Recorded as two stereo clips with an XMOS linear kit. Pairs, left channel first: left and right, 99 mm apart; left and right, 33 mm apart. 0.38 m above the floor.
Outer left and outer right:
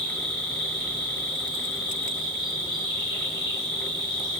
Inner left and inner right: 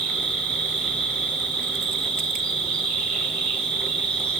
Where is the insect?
50° left (ahead or behind), 1.3 m.